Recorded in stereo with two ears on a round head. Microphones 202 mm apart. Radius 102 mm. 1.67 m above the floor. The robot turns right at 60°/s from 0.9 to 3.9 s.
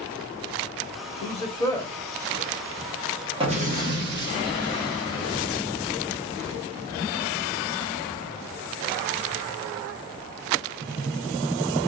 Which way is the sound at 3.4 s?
155° right.